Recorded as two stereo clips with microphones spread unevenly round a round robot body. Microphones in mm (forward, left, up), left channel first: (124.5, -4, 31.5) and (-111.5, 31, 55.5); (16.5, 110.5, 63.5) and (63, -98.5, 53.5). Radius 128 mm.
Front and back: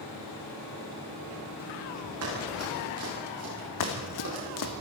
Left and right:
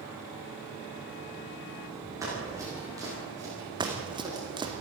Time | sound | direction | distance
2.2 | running footsteps | 155° right | 10 m
3.8 | running footsteps | 5° right | 1.9 m